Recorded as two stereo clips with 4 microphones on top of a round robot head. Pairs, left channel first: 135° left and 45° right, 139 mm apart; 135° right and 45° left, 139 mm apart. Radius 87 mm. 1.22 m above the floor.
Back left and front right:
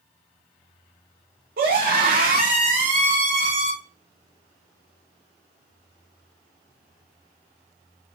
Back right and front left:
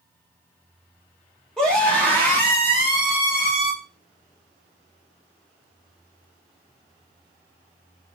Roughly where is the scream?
Ahead right.